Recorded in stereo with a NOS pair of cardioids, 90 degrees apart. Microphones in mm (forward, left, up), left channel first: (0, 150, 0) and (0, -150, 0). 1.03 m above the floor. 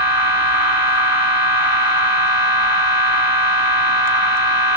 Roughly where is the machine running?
Ahead left.